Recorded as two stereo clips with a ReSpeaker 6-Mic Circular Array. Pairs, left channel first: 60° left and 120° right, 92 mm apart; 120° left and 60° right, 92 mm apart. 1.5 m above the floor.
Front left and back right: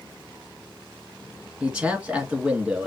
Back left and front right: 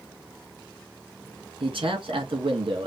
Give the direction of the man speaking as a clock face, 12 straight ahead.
1 o'clock.